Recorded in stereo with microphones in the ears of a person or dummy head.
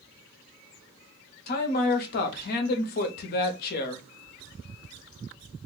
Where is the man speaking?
50° left (ahead or behind), 0.7 m.